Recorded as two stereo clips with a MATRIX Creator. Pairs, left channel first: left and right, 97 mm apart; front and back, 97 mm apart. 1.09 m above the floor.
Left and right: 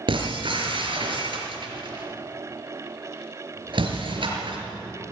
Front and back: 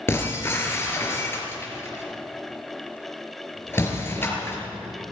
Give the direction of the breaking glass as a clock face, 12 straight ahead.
2 o'clock.